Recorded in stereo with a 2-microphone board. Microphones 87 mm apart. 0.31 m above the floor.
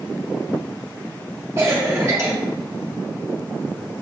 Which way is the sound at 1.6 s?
35° right (ahead or behind).